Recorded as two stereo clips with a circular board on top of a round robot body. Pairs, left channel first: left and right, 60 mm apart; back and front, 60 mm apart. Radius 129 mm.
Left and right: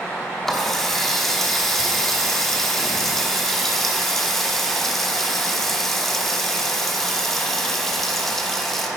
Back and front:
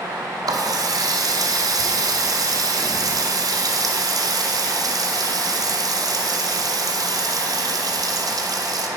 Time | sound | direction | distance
0.5 | a running tap | 5° left | 0.9 m